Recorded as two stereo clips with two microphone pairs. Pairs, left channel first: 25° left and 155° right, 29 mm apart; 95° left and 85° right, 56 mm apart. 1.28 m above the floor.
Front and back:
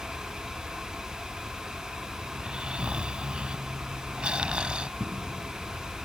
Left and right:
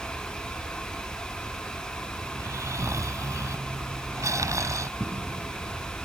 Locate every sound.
2.3 s snoring: 95° right
5.0 s footsteps: 115° right